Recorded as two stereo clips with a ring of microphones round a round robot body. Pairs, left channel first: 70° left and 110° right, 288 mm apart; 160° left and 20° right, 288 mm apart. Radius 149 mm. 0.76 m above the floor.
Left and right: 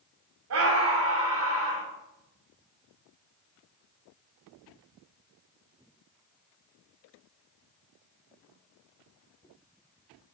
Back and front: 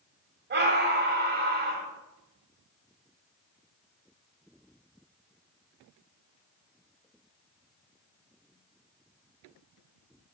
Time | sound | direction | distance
0.5 | a scream | 75° right | 2.5 m